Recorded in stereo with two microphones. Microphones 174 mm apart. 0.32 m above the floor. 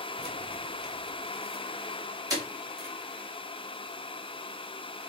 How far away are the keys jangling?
About 0.9 m.